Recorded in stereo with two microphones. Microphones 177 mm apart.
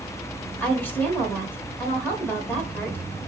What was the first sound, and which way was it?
A woman speaking, 10° left (ahead or behind).